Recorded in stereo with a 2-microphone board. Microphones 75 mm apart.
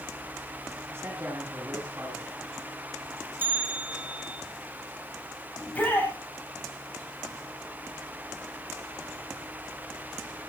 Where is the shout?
20° left (ahead or behind), 8 m.